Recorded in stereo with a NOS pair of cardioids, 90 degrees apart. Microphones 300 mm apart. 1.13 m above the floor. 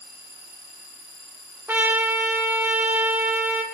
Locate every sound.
1.7 s a trumpet: 5° right, 3.5 m